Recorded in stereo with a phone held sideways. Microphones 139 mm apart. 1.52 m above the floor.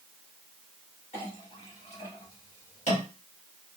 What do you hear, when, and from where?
1.1 s a clink: 55° left (ahead or behind), 1.7 m